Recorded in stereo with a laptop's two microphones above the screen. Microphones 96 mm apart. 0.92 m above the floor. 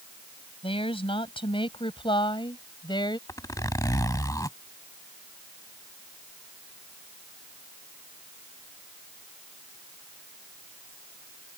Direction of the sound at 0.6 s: 75° left (ahead or behind).